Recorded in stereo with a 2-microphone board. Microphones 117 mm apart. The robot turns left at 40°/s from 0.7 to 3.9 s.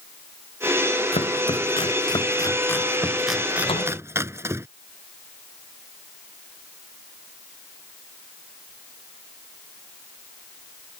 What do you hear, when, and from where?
1.1 s chopping: 70° left (ahead or behind); by 4.7 s 25° right (ahead or behind)
3.7 s a door slam: 55° left (ahead or behind); by 4.0 s 65° left (ahead or behind)